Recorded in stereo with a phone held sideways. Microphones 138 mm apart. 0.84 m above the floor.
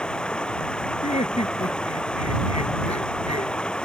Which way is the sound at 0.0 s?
5° left (ahead or behind).